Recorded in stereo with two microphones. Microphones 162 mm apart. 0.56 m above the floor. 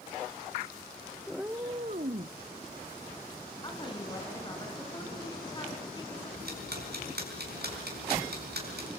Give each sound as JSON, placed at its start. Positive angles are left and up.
{"t": 1.3, "sound": "a cat meowing", "side_deg": 0, "distance_m": 0.7}
{"t": 3.6, "sound": "a woman speaking", "side_deg": 25, "distance_m": 4.5}
{"t": 6.4, "sound": "ticking", "side_deg": -80, "distance_m": 5.0}